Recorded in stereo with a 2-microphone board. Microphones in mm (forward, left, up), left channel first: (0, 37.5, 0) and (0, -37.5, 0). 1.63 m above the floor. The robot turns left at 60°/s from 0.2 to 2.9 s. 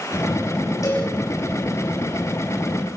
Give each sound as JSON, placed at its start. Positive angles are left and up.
{"t": 0.8, "sound": "a cowbell", "side_deg": 45, "distance_m": 8.5}